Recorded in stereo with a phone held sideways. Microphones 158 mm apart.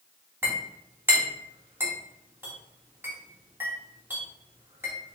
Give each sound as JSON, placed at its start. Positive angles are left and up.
{"t": 0.4, "sound": "a clink", "side_deg": -15, "distance_m": 1.7}